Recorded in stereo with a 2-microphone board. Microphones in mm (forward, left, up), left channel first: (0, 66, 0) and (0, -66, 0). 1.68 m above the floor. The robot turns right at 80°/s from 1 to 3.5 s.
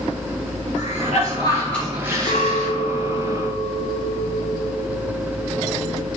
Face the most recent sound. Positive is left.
turn(degrees=-130)